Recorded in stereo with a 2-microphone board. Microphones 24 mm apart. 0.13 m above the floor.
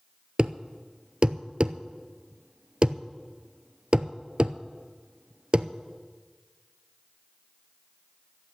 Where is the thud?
40° right (ahead or behind), 0.6 m.